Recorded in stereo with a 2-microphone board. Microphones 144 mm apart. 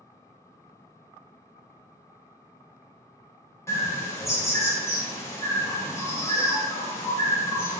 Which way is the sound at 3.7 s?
20° left (ahead or behind).